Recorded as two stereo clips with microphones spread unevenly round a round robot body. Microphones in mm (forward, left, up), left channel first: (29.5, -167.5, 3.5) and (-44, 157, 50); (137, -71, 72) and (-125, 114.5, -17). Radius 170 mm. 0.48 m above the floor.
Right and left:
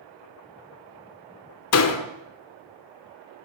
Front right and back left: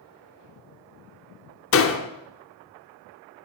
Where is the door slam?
90° right, 0.9 m.